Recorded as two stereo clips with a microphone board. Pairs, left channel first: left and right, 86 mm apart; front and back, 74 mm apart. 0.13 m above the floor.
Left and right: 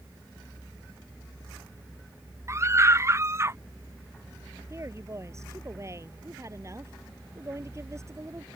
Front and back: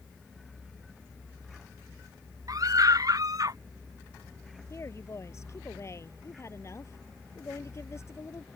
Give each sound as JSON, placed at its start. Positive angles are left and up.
{"t": 2.5, "sound": "a scream", "azimuth_deg": -145}
{"t": 4.7, "sound": "a woman speaking", "azimuth_deg": -45}